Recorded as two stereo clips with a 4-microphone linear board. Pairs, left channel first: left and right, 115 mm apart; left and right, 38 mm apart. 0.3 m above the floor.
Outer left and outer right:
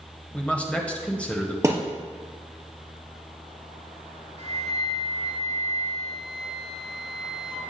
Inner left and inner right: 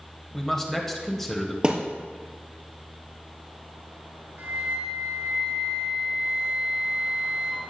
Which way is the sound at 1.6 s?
25° right (ahead or behind).